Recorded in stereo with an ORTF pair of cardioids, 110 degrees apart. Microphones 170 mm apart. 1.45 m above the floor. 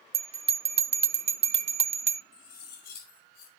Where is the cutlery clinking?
65° left, 5 m.